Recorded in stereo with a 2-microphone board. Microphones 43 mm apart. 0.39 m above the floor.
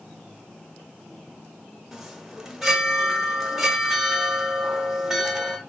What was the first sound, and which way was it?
A chime, 5° right (ahead or behind).